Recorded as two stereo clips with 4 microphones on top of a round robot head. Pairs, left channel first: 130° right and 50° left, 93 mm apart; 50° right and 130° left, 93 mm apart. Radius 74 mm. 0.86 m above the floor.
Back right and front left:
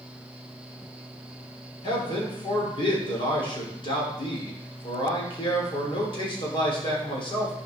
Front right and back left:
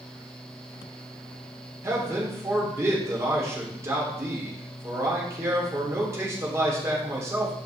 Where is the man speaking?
165° right, 3 m.